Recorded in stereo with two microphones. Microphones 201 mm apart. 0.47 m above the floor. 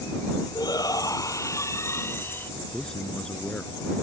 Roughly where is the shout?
Centre.